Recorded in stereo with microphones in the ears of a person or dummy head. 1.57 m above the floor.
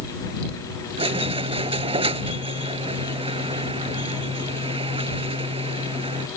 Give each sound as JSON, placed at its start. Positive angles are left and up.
{"t": 1.0, "sound": "a squeak", "side_deg": -30}